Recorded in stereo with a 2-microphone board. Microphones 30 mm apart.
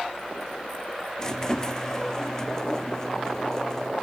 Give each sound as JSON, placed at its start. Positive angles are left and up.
{"t": 1.2, "sound": "a squeak", "side_deg": 20, "distance_m": 0.5}